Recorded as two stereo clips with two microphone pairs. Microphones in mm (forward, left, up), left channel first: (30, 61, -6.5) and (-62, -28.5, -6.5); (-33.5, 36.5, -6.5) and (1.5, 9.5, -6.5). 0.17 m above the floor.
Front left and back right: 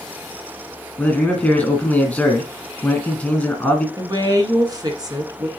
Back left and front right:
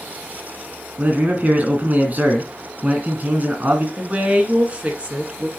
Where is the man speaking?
25° right, 2.0 m.